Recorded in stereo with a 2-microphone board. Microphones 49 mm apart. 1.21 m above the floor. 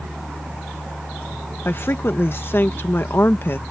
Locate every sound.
1.6 s a woman speaking: 50° left (ahead or behind)